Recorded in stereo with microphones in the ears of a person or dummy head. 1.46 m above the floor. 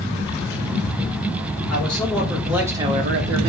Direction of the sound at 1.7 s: 10° left (ahead or behind).